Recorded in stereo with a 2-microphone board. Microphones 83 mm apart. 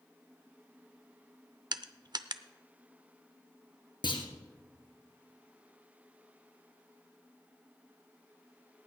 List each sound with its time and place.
1.7 s crushing: 60° right (ahead or behind), 0.6 m
4.0 s a clunk: 70° left (ahead or behind), 2.5 m